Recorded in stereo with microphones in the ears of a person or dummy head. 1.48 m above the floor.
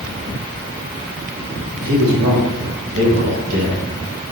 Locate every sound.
1.8 s a man speaking: 65° right (ahead or behind), 1.6 m; by 3.8 s 45° right (ahead or behind), 2 m